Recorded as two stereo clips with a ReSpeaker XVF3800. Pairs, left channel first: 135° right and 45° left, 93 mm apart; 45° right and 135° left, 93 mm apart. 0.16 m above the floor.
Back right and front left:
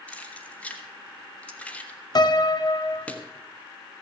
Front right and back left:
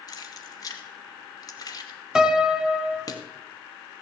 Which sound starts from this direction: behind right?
A piano, at 2.1 s.